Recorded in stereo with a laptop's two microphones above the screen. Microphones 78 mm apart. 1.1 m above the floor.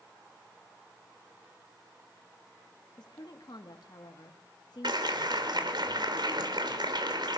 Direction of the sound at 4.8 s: 75° right (ahead or behind).